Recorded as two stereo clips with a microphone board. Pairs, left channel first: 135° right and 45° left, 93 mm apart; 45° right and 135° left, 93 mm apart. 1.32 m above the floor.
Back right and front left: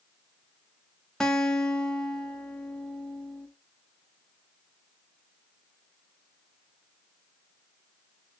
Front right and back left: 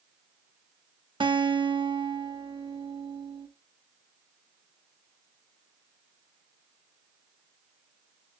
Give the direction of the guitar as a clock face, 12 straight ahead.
7 o'clock.